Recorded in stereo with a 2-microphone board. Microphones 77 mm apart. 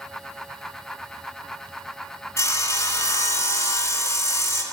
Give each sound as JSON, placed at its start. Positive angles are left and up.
{"t": 2.4, "sound": "sawing", "side_deg": 35, "distance_m": 1.8}